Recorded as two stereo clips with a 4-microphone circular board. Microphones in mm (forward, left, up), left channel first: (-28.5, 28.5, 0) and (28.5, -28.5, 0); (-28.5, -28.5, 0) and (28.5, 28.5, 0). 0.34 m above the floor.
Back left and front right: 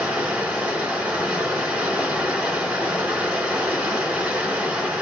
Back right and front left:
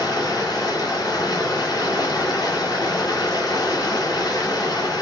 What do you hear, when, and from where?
0.0 s running water: 115° right, 2.0 m